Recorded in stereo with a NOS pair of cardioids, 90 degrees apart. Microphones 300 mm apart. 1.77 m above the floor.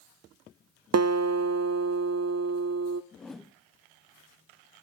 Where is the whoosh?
Straight ahead, 1.3 m.